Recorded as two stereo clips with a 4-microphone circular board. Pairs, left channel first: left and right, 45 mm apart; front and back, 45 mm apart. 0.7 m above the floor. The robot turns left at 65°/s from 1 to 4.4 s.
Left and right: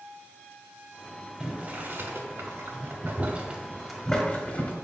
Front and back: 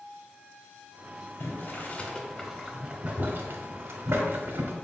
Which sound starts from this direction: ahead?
Boiling, at 1.4 s.